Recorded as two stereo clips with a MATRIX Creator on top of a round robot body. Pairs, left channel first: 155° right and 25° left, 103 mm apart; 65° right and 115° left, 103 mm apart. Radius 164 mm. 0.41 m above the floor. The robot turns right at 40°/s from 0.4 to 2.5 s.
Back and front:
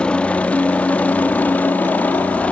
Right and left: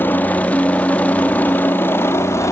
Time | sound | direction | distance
0.0 | a helicopter | 95° right | ?